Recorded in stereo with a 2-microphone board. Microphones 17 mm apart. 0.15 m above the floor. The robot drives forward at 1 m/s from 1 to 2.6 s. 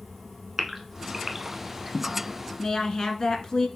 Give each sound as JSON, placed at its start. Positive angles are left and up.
{"t": 0.6, "sound": "a gasp", "side_deg": -20, "distance_m": 0.8}
{"t": 2.6, "sound": "a woman speaking", "side_deg": 45, "distance_m": 1.4}